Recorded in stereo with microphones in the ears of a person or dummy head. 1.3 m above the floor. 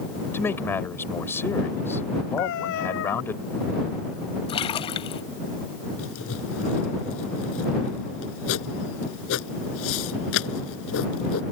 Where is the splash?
30° left (ahead or behind).